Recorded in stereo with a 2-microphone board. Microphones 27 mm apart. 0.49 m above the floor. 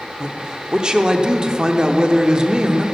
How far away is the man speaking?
About 0.8 m.